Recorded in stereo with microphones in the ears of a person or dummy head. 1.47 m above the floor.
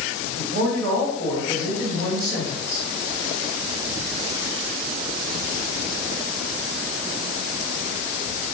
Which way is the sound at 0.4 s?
85° right.